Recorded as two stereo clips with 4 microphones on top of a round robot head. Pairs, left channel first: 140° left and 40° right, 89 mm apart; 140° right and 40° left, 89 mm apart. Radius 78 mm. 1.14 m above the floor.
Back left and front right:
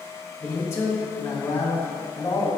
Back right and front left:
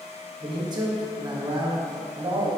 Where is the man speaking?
80° left, 1.4 m.